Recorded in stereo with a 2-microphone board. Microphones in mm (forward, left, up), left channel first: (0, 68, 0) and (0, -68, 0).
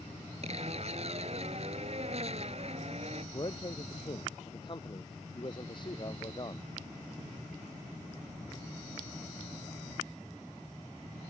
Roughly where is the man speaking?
Left.